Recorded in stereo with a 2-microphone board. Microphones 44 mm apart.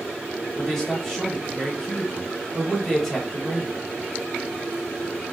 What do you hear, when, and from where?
0.6 s a man speaking: 5° left (ahead or behind), 0.9 m